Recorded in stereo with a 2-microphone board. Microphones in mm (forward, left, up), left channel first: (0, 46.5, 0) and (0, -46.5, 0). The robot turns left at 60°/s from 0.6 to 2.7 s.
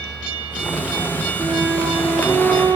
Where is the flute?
135° right, 2 m; by 2.8 s 150° left, 2 m.